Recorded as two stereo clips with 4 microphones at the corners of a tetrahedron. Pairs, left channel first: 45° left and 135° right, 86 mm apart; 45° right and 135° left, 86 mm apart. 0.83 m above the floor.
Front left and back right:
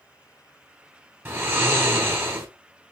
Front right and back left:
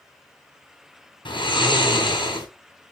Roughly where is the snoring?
Right.